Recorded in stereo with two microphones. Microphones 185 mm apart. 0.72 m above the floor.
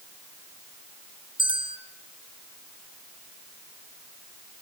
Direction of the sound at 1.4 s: 30° right (ahead or behind).